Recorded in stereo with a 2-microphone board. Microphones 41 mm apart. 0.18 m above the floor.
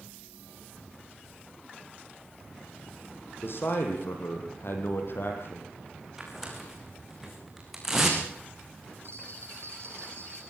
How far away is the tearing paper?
About 5.5 m.